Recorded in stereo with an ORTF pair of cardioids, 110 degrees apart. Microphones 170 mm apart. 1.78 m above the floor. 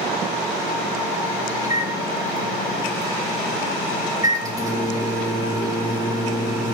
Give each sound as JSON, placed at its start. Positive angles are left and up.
{"t": 1.6, "sound": "a microwave", "azimuth_deg": -20, "distance_m": 1.7}